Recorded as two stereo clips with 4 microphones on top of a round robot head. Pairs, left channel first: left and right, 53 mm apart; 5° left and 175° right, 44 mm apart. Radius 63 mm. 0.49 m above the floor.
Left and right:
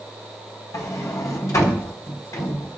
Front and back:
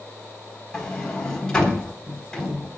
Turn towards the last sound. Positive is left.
turn(degrees=75)